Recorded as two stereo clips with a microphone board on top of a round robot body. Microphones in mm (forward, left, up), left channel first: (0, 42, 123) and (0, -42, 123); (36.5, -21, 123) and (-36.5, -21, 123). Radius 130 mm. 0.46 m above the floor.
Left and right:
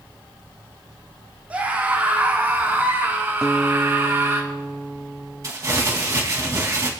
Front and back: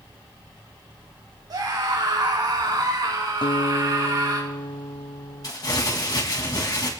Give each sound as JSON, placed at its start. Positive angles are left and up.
{"t": 1.5, "sound": "a scream", "azimuth_deg": -160, "distance_m": 4.0}
{"t": 3.4, "sound": "a guitar", "azimuth_deg": -10, "distance_m": 0.9}
{"t": 5.4, "sound": "crumpling", "azimuth_deg": -35, "distance_m": 2.5}